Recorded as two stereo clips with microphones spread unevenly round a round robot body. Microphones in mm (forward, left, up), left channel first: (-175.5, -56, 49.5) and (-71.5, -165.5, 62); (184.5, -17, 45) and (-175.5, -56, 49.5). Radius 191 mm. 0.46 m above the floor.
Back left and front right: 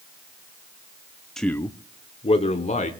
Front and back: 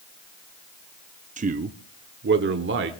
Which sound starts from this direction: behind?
A man speaking, at 1.4 s.